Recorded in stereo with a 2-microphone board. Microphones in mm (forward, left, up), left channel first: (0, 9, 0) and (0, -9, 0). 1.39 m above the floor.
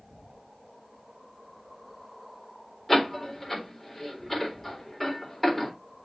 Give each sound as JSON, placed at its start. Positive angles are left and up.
{"t": 2.9, "sound": "a door slam", "side_deg": 5, "distance_m": 4.0}